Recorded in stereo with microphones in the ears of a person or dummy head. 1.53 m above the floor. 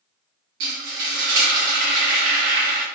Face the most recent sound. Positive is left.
turn(degrees=-55)  # may be behind; listen again after turning